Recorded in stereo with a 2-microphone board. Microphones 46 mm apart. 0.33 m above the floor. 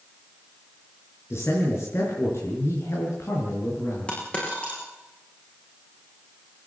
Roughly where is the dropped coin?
Left.